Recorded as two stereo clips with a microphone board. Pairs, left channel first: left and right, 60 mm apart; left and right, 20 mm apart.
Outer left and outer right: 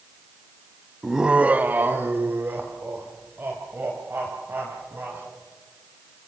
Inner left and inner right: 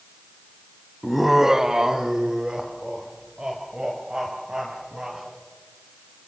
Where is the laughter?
5° right (ahead or behind), 0.9 m; by 5.2 s 35° right (ahead or behind), 5.5 m.